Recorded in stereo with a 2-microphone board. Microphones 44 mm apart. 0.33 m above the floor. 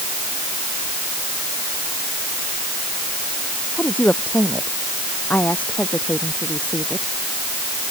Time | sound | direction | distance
3.8 | a woman speaking | 40° left (ahead or behind) | ?